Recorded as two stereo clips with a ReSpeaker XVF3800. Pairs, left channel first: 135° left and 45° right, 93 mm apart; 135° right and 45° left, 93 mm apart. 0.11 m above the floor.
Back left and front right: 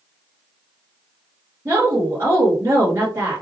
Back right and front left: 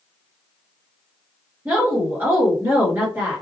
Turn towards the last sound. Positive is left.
turn(degrees=-5)